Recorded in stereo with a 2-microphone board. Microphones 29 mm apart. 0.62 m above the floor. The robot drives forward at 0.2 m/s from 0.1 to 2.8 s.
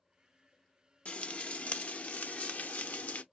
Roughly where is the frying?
Left.